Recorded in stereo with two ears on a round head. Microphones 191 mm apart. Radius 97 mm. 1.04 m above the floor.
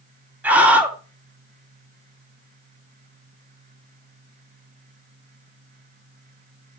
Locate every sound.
0.4 s a scream: 10° right (ahead or behind), 2.5 m